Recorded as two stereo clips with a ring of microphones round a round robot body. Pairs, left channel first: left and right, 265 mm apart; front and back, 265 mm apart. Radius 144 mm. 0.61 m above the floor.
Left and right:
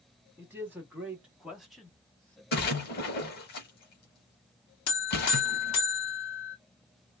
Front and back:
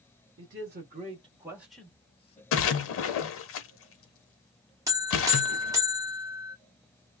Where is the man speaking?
170° right, 1.1 m; by 2.4 s 10° left, 0.9 m.